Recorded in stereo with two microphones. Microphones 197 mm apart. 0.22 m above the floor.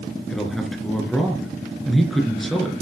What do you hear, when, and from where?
0.3 s a man speaking: centre (ahead or behind), 3.5 m